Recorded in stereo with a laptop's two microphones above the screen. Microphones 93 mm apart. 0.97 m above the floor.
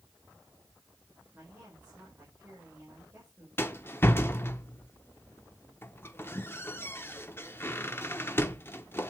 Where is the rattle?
25° left (ahead or behind), 1.1 m.